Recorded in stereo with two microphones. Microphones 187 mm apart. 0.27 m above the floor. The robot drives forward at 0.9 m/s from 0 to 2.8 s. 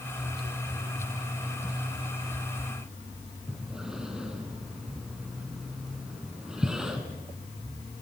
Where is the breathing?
5° right (ahead or behind), 3 m.